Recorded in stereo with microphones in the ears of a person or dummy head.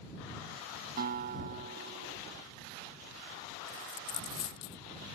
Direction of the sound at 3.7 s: 50° left (ahead or behind).